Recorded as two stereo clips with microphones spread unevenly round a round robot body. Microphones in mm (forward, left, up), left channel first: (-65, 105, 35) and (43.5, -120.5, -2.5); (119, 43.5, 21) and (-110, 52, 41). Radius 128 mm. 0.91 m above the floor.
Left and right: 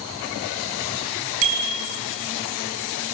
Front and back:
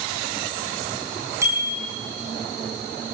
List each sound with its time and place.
1.4 s a bicycle bell: 105° right, 6 m